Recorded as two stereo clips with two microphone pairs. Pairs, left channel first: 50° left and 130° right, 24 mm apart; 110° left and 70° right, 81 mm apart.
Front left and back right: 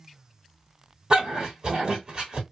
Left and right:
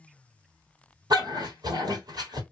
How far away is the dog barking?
About 2 m.